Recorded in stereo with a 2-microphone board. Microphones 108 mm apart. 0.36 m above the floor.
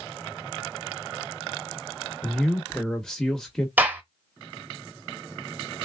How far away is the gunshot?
About 1.1 m.